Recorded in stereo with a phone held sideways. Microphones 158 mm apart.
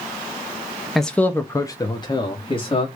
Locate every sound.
0.9 s a man speaking: centre (ahead or behind), 0.8 m; by 2.9 s 35° left (ahead or behind), 1.8 m